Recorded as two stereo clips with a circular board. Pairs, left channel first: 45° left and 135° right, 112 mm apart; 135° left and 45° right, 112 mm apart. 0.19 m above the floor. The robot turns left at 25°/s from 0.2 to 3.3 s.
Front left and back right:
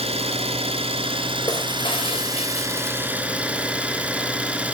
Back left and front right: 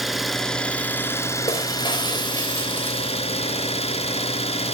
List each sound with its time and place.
0.0 s an engine running: 135° right, 1.5 m; by 4.7 s 150° left, 1.5 m
1.5 s breaking glass: 95° left, 3 m; by 3.7 s 50° left, 3 m